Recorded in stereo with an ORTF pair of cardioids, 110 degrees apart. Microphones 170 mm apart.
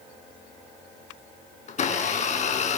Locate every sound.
1.7 s a blender: 45° left, 5 m